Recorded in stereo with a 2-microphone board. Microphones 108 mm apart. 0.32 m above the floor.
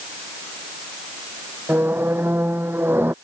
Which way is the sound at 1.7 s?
20° right (ahead or behind).